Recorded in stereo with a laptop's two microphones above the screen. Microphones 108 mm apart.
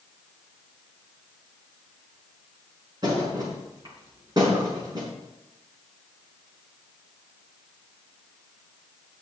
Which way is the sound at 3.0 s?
35° right (ahead or behind).